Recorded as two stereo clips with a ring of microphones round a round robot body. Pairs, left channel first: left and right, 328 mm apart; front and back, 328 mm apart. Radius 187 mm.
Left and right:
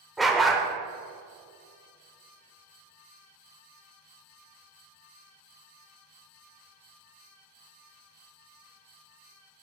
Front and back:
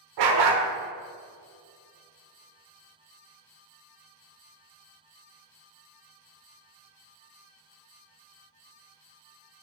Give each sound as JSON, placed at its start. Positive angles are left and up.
{"t": 0.2, "sound": "a dog barking", "azimuth_deg": 180, "distance_m": 1.1}